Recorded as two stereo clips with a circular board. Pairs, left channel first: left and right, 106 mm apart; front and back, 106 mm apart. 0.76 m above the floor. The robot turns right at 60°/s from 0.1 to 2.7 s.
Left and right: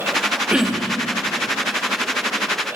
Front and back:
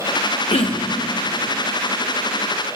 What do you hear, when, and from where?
0.5 s throat clearing: 10° right, 0.9 m; by 1.0 s 20° left, 0.9 m